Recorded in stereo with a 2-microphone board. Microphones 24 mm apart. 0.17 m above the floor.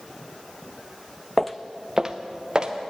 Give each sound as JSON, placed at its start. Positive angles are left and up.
{"t": 1.4, "sound": "footsteps", "side_deg": 10, "distance_m": 0.5}